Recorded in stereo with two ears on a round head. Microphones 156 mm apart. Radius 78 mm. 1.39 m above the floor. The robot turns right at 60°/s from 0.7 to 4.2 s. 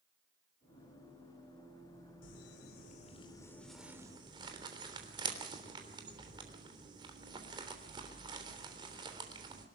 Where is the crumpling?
85° left, 3.5 m; by 9.7 s 30° right (ahead or behind), 3.5 m.